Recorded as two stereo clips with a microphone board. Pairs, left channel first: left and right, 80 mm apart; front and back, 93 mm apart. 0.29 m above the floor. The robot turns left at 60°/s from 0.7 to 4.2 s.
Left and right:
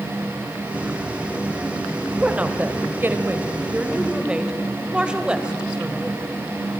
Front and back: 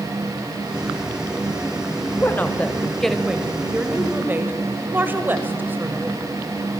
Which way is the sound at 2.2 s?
30° right.